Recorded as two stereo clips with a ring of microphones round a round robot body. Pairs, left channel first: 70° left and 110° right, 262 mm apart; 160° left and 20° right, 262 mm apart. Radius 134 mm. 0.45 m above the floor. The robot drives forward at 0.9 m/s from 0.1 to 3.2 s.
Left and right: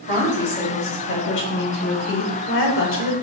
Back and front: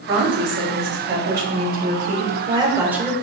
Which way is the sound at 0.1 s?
15° left.